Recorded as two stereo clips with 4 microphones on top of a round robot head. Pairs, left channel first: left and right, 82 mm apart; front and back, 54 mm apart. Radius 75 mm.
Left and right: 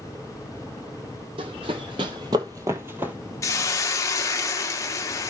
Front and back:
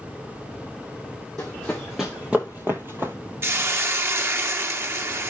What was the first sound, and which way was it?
Running footsteps, 80° right.